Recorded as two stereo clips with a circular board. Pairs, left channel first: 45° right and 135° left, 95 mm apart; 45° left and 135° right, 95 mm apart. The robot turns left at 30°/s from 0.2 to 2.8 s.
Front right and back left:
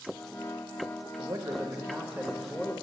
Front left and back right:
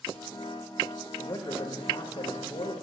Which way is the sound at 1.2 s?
85° left.